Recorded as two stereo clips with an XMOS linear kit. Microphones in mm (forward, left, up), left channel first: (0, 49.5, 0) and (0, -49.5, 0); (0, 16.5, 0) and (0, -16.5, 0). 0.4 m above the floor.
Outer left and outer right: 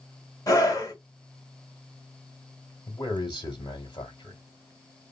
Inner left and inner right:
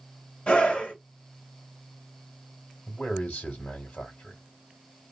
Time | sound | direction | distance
0.5 | a scream | 35° left (ahead or behind) | 1.5 m
2.9 | a man speaking | 45° left (ahead or behind) | 1.3 m